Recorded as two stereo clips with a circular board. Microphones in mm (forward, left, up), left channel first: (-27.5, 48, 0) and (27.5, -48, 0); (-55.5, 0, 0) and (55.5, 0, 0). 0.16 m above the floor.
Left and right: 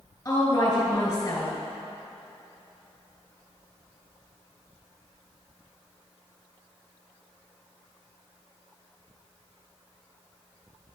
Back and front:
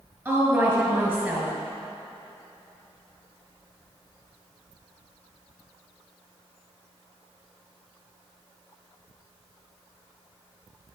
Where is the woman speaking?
65° left, 2.5 m.